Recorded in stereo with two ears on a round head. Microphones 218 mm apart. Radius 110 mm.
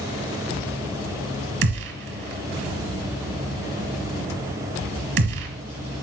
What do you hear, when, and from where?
1.6 s a gunshot: 50° right (ahead or behind), 1.8 m